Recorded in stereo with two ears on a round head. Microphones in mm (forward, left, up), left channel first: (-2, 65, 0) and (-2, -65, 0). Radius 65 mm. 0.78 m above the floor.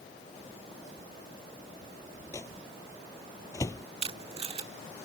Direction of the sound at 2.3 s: 20° left (ahead or behind).